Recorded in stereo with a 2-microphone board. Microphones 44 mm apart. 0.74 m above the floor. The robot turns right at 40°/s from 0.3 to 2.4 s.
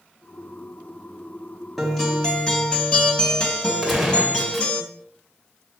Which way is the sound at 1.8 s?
Centre (ahead or behind).